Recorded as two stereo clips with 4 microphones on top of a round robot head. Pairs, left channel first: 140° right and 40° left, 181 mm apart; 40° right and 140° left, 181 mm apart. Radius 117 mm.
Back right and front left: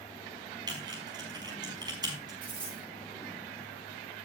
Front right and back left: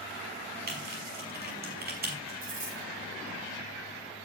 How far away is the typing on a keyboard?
About 5 m.